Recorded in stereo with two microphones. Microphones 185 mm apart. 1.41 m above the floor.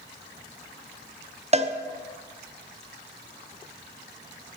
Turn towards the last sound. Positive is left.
turn(degrees=-35)  # may be behind; listen again after turning